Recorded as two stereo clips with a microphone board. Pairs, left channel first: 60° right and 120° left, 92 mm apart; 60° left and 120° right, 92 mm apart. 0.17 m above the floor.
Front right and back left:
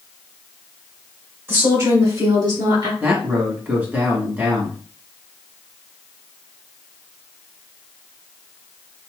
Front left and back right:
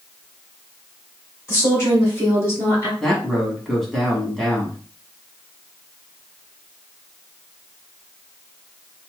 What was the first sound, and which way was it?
A woman speaking, 90° left.